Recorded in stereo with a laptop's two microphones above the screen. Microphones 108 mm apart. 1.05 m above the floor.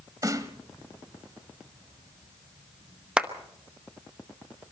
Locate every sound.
0.2 s a snare drum: 35° right (ahead or behind), 1.2 m
3.2 s a clap: 10° right (ahead or behind), 0.9 m